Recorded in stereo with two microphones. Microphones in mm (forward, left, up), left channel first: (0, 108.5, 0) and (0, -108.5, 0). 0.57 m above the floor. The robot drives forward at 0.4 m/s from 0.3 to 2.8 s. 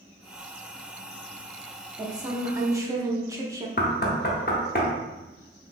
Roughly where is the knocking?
Left.